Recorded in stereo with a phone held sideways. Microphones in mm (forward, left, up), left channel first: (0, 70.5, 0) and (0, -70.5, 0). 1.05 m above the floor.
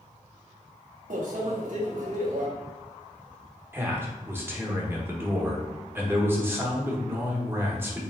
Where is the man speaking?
15° right (ahead or behind), 1.0 m.